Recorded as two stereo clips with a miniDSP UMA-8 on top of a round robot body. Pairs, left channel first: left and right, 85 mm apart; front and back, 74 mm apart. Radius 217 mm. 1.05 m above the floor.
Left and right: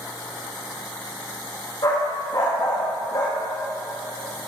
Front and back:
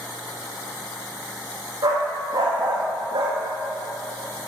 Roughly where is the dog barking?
Behind left.